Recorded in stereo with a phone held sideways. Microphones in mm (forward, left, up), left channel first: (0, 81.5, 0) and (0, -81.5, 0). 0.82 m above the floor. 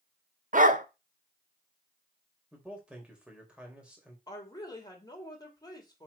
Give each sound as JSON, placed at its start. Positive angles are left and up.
{"t": 0.5, "sound": "a dog barking", "side_deg": -55, "distance_m": 0.8}
{"t": 2.5, "sound": "a man speaking", "side_deg": -5, "distance_m": 3.0}
{"t": 4.3, "sound": "a woman speaking", "side_deg": 25, "distance_m": 2.5}